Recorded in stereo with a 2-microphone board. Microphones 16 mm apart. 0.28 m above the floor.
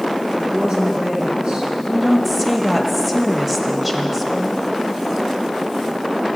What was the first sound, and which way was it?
A woman speaking, 70° right (ahead or behind).